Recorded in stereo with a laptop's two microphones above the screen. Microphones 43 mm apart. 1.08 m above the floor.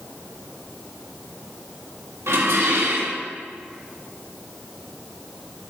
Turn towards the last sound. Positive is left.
turn(degrees=-85)